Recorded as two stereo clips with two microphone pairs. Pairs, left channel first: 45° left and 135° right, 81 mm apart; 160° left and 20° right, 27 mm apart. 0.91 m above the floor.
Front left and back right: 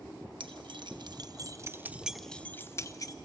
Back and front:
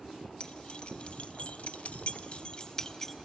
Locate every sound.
0.4 s keys jangling: 150° right, 1.1 m; by 3.2 s 85° left, 0.8 m